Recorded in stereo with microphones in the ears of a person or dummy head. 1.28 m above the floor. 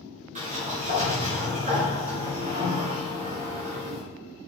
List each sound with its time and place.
0.3 s a sliding door: 40° right (ahead or behind), 2.5 m